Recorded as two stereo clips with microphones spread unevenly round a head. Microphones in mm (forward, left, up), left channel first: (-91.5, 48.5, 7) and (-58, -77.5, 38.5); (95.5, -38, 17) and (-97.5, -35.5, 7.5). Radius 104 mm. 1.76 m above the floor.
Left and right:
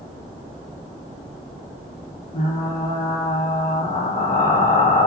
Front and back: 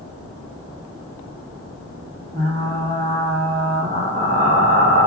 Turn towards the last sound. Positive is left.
turn(degrees=115)